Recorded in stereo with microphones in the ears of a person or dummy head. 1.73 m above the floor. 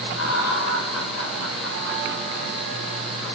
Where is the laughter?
90° left, 8.5 m.